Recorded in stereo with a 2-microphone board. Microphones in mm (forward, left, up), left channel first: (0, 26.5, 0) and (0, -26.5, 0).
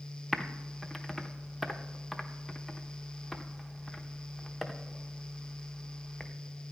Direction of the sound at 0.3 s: Centre (ahead or behind).